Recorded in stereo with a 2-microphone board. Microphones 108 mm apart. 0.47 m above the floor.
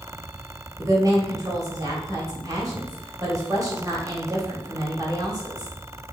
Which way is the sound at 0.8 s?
35° right (ahead or behind).